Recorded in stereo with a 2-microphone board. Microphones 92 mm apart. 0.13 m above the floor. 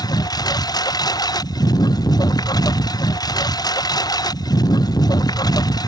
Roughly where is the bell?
No bell in this recording.